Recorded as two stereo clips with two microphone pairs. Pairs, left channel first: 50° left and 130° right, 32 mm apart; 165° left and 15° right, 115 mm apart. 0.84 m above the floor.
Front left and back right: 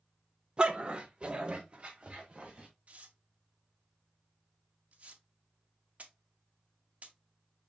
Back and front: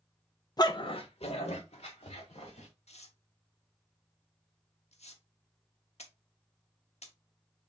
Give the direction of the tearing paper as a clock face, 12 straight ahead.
6 o'clock.